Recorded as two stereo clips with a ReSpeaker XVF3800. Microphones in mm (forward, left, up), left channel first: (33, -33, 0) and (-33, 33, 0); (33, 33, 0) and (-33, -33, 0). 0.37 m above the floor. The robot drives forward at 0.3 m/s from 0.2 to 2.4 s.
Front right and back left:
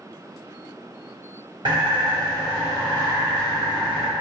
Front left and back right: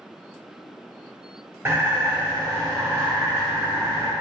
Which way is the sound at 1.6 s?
160° left.